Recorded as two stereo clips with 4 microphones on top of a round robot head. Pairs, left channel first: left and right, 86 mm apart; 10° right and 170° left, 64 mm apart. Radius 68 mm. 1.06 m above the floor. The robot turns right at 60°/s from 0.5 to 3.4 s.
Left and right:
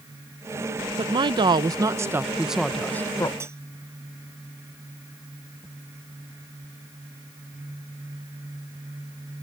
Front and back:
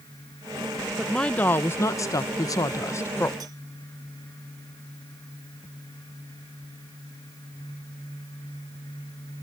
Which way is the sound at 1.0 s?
100° right.